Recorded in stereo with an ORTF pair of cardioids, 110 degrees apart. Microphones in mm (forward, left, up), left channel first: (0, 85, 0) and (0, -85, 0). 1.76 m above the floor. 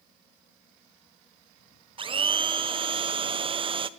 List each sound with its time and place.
2.0 s a blender: 30° right, 1.3 m